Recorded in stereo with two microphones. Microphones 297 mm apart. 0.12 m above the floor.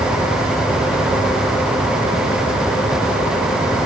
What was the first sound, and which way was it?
Only background noise.